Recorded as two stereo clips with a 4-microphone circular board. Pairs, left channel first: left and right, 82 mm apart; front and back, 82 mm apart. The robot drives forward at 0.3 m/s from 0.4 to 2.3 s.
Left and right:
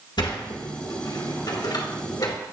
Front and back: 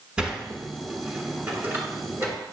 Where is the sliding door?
100° left, 1.4 m; by 2.4 s 125° left, 1.6 m.